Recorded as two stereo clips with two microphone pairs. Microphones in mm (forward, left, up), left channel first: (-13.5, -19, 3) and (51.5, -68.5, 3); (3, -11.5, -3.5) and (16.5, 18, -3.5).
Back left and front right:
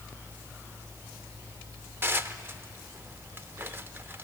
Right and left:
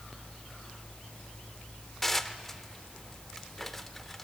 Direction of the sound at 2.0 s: 35° right.